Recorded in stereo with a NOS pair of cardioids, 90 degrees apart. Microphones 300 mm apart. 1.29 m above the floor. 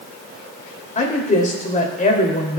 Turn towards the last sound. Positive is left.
turn(degrees=25)